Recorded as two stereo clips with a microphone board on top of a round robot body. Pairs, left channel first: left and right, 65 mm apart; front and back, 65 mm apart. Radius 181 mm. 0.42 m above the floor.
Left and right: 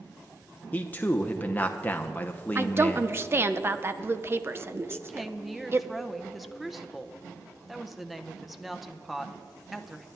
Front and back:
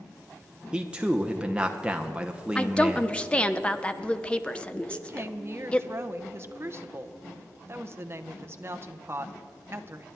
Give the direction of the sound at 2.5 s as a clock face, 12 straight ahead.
2 o'clock.